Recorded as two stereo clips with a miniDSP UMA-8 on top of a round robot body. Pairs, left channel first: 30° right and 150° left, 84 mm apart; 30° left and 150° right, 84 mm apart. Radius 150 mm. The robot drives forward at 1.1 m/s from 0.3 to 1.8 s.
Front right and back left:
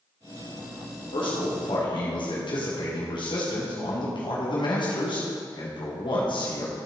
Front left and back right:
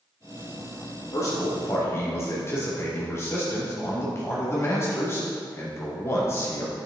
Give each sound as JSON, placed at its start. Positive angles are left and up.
{"t": 1.1, "sound": "a man speaking", "azimuth_deg": -20, "distance_m": 3.0}